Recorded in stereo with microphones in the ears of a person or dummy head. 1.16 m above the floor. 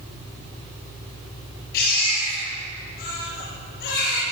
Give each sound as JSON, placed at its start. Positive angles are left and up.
{"t": 1.7, "sound": "a baby crying", "side_deg": 60, "distance_m": 7.5}